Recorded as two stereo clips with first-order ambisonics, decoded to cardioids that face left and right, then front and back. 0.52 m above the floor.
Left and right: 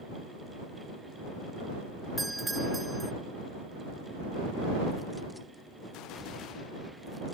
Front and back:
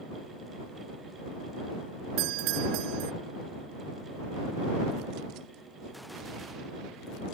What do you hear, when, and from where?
2.2 s a doorbell: 175° right